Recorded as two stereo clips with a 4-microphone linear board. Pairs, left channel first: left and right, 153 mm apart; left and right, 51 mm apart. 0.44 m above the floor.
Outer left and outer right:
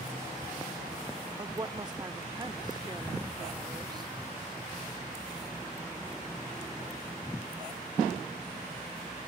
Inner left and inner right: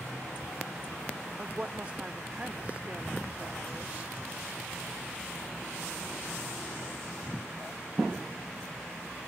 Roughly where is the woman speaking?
Right.